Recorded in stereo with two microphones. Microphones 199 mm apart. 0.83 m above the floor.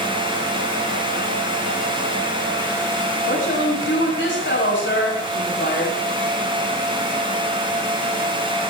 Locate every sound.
3.2 s a woman speaking: 75° left (ahead or behind), 6 m